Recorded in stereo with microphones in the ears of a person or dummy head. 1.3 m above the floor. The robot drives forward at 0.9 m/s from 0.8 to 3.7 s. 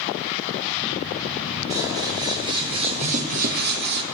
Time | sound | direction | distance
1.7 | scissors | 20° right (ahead or behind) | 2.5 m